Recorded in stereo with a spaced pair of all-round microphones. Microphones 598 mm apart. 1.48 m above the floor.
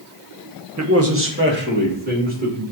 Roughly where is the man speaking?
Right.